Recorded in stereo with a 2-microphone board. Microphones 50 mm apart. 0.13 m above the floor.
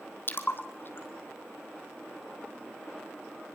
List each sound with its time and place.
0.3 s a splash: 45° left (ahead or behind), 2.0 m